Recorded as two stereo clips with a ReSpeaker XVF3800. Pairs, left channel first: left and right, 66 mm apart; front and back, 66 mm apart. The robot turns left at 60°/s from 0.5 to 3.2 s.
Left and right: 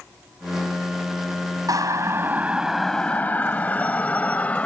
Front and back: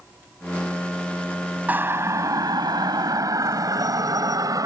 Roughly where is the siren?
Behind right.